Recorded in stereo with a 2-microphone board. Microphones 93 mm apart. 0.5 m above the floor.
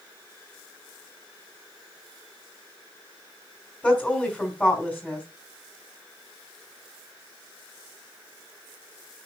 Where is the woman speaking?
15° left (ahead or behind), 2.5 m.